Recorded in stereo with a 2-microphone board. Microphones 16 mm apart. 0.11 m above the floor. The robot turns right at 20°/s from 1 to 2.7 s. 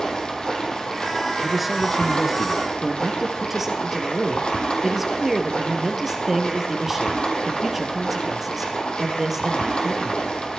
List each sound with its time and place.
0.0 s running water: 45° left, 3.5 m; by 10.6 s 75° left, 3.5 m
1.4 s a man speaking: 5° right (ahead or behind), 1.3 m; by 2.7 s 15° right (ahead or behind), 1.3 m
2.8 s a man speaking: 20° right (ahead or behind), 2.5 m